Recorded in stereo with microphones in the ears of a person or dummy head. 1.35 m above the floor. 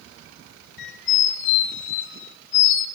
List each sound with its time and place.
0.8 s a squeak: 65° left (ahead or behind), 1.8 m